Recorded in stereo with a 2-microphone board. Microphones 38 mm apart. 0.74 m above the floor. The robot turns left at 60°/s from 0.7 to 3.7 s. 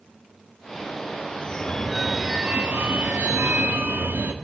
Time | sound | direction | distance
1.4 | a phone ringing | 40° left | 0.7 m